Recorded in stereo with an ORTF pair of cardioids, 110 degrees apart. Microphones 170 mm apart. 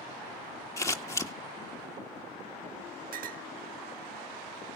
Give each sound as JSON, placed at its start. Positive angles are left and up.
{"t": 0.8, "sound": "scissors", "azimuth_deg": 15, "distance_m": 1.7}
{"t": 3.1, "sound": "a clink", "azimuth_deg": -55, "distance_m": 1.2}